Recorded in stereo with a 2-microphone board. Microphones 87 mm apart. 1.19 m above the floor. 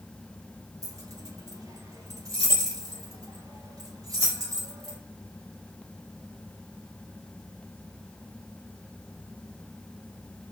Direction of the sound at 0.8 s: 40° right (ahead or behind).